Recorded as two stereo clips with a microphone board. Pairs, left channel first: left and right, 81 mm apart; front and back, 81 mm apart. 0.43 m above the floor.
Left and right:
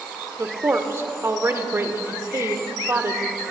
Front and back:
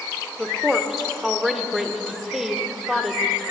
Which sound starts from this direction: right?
A woman speaking, at 0.4 s.